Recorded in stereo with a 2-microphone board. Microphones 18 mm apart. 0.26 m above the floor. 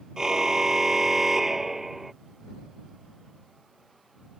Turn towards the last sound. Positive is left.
turn(degrees=-10)  # may be behind; listen again after turning